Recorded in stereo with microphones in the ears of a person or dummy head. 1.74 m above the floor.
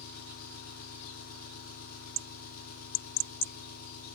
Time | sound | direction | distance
0.0 | an engine running | 45° left (ahead or behind) | 1.6 m